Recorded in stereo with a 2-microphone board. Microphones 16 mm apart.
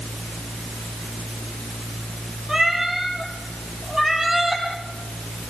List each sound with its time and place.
2.5 s a cat meowing: 30° right (ahead or behind), 4.5 m; by 4.6 s 20° right (ahead or behind), 5.5 m